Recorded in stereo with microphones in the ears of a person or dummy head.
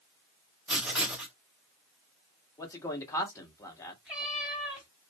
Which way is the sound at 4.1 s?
5° right (ahead or behind).